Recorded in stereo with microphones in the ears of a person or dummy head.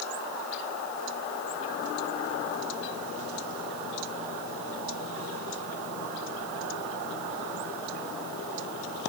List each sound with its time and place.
Only background noise.